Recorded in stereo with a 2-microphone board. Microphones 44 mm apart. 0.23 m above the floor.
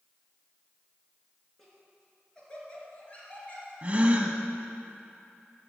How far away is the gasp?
About 0.9 m.